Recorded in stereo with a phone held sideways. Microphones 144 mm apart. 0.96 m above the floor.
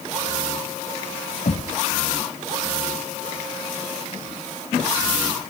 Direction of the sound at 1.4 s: 60° left (ahead or behind).